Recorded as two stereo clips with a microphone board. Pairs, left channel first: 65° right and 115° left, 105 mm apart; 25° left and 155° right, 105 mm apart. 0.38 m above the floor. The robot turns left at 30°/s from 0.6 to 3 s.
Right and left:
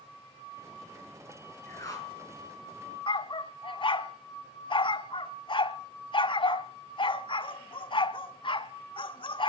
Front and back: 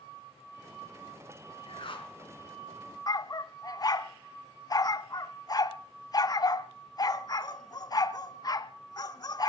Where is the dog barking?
30° right, 0.9 m.